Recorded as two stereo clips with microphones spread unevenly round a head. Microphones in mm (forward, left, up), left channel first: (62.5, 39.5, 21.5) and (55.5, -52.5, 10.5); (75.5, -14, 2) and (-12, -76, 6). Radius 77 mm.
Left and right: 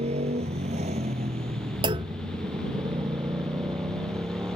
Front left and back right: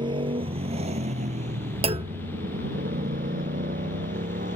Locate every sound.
0.0 s a motorcycle: 100° right; by 4.6 s 170° right
1.8 s a clunk: 125° right